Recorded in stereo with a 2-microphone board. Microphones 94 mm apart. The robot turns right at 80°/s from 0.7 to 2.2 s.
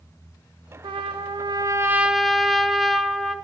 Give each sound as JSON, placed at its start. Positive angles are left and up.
{"t": 0.8, "sound": "a trumpet", "azimuth_deg": -110, "distance_m": 1.3}